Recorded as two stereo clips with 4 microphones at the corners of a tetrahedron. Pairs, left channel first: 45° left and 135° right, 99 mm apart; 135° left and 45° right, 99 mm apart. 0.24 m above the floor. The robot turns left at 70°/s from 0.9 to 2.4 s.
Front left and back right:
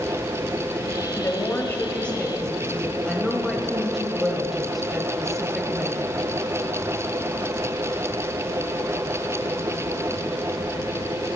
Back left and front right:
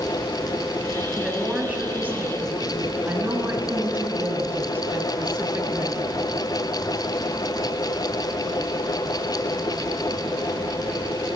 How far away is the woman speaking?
About 1.0 m.